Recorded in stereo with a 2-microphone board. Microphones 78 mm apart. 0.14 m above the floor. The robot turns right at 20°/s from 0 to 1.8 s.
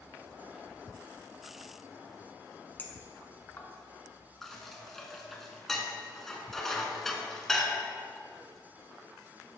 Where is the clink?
25° left (ahead or behind), 0.9 m.